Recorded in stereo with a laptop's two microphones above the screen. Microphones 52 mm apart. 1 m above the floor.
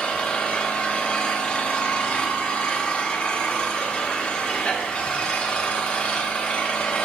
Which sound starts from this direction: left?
An engine running, at 0.0 s.